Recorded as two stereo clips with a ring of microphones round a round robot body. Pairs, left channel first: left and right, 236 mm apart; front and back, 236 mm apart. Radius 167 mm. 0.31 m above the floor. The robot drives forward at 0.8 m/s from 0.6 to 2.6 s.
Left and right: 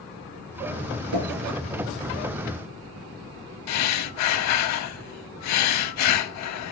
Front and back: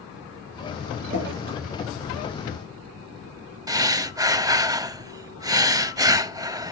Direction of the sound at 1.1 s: 115° right.